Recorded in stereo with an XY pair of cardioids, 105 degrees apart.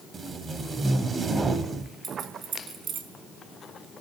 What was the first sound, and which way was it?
Tape being pulled, 35° right.